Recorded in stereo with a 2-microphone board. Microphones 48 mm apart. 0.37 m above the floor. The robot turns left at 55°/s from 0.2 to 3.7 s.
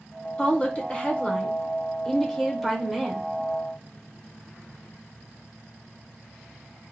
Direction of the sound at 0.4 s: 20° left (ahead or behind).